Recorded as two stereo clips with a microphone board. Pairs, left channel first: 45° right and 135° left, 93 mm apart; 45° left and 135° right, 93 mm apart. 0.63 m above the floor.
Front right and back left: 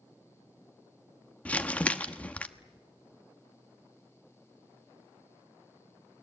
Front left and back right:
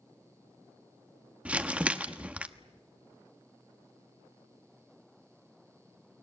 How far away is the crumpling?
About 1.2 m.